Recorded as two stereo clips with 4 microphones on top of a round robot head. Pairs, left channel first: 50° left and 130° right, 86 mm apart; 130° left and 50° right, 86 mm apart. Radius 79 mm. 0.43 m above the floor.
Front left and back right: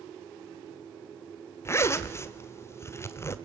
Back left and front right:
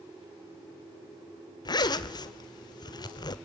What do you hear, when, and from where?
1.6 s a zipper: 105° left, 1.3 m